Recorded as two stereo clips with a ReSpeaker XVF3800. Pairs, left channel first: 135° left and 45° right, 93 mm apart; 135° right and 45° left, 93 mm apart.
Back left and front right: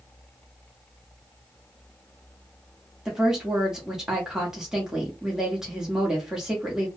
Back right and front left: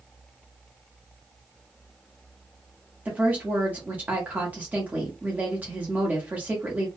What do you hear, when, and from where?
3.0 s a woman speaking: 25° left, 1.0 m